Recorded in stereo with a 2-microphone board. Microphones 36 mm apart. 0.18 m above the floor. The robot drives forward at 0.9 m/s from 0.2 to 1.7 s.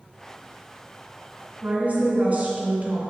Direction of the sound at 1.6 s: 45° right (ahead or behind).